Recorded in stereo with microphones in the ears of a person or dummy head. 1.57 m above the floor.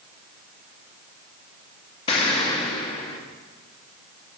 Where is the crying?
I don't hear crying.